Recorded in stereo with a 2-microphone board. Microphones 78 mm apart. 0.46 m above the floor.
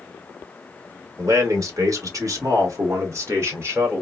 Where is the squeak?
I don't hear a squeak.